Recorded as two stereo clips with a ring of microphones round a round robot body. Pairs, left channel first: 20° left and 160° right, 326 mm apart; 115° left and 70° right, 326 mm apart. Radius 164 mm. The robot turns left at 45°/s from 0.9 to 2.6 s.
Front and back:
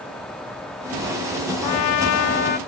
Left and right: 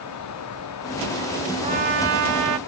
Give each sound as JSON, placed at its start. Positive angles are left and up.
{"t": 1.6, "sound": "a trumpet", "azimuth_deg": 0, "distance_m": 0.7}